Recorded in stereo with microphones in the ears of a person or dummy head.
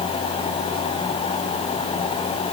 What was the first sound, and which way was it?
Only background noise.